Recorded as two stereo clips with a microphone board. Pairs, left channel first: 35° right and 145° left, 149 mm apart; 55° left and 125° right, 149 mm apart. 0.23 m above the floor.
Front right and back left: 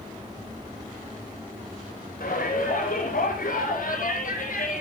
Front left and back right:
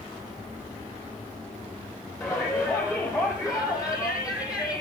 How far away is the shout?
About 9 m.